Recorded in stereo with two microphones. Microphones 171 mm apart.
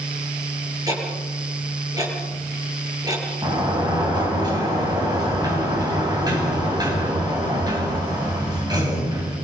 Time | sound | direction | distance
0.9 | ticking | 20° right (ahead or behind) | 8.5 m
3.4 | a sliding door | 25° right (ahead or behind) | 7.5 m